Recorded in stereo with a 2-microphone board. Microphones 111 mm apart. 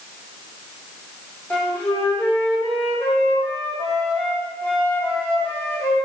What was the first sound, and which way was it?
A flute, 20° left (ahead or behind).